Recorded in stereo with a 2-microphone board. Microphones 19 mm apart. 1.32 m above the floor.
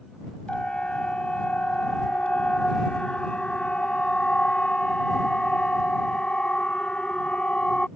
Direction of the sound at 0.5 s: 85° left.